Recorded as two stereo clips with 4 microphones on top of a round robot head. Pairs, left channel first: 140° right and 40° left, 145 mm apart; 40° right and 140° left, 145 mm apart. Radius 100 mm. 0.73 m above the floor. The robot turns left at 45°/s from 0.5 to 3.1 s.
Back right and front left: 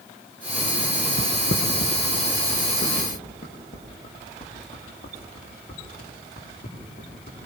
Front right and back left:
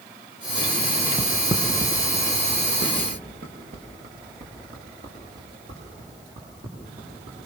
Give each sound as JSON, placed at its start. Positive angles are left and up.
{"t": 1.2, "sound": "footsteps", "azimuth_deg": -140, "distance_m": 3.5}